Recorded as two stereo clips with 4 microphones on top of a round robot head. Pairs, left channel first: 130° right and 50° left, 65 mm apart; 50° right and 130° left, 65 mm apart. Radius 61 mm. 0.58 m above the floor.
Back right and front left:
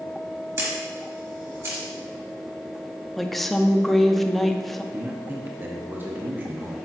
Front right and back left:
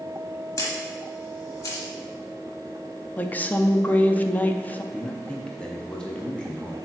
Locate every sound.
0.6 s a camera shutter: straight ahead, 1.5 m
3.2 s a woman speaking: 45° right, 0.6 m
4.9 s a man speaking: 20° left, 0.8 m